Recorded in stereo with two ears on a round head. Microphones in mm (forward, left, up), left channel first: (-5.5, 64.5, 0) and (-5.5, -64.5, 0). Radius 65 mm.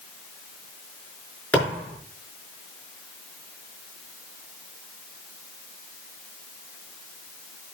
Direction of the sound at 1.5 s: 10° left (ahead or behind).